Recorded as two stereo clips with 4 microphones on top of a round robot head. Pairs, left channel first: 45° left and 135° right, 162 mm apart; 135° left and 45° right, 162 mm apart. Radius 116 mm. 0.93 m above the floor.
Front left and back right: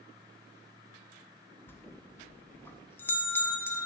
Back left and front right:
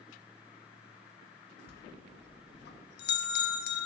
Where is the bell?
125° left, 0.8 m.